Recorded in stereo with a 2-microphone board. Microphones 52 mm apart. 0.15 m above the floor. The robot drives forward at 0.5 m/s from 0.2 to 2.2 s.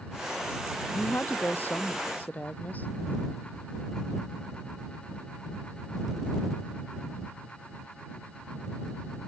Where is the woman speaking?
35° left (ahead or behind); by 2.9 s 30° left (ahead or behind).